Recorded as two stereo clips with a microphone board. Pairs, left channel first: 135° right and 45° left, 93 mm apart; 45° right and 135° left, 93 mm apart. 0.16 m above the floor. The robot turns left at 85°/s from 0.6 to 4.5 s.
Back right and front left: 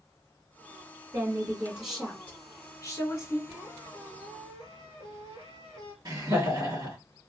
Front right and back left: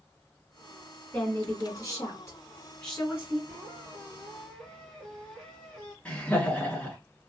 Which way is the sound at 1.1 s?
25° left.